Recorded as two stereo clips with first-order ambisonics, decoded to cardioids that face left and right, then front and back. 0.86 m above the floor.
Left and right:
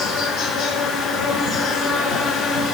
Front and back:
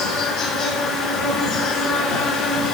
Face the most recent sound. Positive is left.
turn(degrees=10)